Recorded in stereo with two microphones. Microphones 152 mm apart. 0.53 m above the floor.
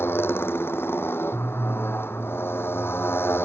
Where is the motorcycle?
15° left (ahead or behind).